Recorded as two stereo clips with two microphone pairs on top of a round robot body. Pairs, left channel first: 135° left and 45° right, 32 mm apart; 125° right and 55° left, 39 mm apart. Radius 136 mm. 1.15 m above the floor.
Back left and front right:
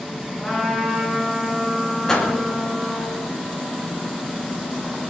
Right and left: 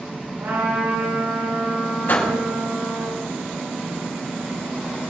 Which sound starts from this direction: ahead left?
A trumpet, at 0.4 s.